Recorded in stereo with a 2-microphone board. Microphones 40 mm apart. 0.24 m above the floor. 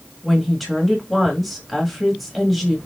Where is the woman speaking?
Centre (ahead or behind), 1.5 m.